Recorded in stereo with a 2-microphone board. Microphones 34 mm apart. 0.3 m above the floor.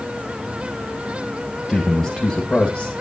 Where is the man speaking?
10° left (ahead or behind), 1.9 m; by 2.9 s 25° left (ahead or behind), 1.6 m.